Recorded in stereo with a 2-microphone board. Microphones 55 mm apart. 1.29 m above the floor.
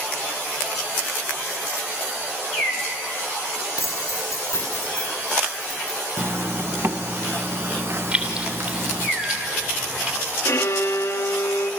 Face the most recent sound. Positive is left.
turn(degrees=65)  # may be behind; listen again after turning